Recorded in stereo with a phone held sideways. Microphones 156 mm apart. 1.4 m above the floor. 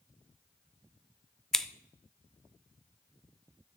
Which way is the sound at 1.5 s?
5° left (ahead or behind).